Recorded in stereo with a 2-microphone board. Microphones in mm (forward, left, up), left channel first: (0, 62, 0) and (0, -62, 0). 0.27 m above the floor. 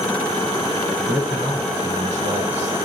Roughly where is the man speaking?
Right.